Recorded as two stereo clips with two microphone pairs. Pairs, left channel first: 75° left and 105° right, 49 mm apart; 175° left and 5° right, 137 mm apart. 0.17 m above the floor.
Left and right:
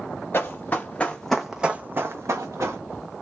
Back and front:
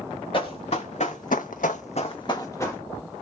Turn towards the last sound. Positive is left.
turn(degrees=-115)